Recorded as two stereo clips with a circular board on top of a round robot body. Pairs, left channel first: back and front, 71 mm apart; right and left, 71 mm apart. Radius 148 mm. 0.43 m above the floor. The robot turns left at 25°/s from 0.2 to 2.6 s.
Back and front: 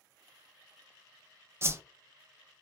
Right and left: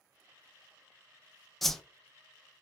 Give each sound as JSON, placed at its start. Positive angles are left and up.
{"t": 1.6, "sound": "a whoosh", "azimuth_deg": -5, "distance_m": 0.6}